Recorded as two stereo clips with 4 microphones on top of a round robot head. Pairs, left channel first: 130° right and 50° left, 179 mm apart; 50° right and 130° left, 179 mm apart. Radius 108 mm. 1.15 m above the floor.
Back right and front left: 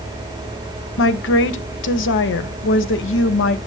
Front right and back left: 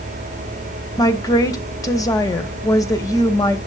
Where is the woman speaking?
120° right, 0.9 m.